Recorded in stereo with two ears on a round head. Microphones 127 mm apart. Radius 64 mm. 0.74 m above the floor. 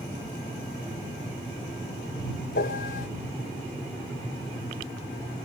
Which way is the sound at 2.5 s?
70° left (ahead or behind).